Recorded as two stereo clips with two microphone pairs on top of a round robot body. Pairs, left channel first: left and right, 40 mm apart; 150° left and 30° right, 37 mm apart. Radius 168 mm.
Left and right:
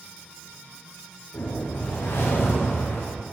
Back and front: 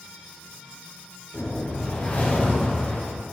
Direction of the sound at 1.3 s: 100° left.